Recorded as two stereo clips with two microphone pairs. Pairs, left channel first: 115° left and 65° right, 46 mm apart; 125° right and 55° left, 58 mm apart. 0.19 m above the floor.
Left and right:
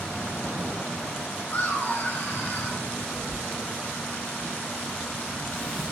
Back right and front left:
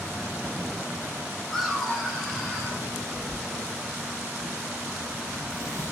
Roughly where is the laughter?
Behind left.